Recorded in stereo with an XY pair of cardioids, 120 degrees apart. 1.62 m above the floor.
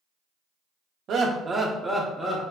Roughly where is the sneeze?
I don't hear a sneeze.